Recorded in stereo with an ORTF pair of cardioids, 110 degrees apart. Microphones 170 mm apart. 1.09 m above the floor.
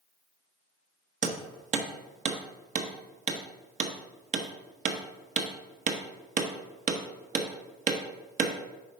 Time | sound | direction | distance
1.2 | hammering | 45° right | 1.0 m